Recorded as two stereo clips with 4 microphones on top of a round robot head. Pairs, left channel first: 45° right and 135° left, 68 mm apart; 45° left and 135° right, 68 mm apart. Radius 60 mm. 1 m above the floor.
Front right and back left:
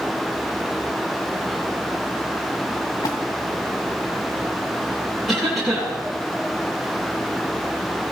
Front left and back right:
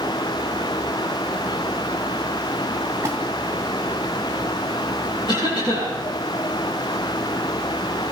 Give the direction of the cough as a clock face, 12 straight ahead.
11 o'clock.